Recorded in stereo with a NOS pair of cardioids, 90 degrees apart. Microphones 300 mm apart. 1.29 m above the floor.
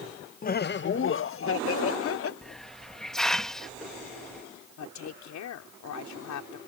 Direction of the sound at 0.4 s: 30° left.